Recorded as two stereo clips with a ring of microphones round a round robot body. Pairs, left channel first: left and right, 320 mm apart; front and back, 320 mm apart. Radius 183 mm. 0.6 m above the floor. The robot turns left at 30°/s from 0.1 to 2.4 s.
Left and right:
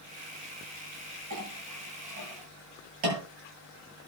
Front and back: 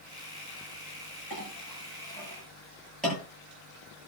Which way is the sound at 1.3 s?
55° right.